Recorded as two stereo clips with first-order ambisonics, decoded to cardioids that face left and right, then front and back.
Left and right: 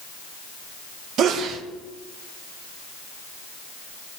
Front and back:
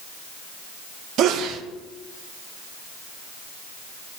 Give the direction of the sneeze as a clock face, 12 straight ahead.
5 o'clock.